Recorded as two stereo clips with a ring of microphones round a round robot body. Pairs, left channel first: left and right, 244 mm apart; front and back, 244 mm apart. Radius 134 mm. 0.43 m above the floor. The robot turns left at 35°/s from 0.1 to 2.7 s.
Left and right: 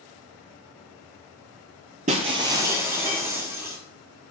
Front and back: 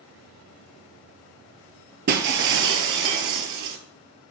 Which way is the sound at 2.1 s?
145° right.